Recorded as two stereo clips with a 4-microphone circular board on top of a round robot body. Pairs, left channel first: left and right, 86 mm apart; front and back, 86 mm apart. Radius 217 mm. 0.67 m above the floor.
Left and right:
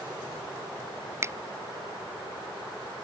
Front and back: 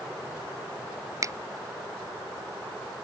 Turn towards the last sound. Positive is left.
turn(degrees=-140)